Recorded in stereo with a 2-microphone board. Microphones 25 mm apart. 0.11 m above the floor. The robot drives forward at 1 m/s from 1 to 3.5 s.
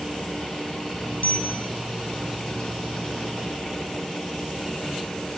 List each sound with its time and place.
1.2 s a bicycle bell: 70° left (ahead or behind), 3.5 m; by 1.7 s 65° left (ahead or behind), 3.5 m